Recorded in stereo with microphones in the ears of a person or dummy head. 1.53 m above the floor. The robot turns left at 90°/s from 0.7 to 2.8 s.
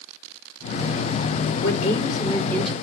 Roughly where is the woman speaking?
Left.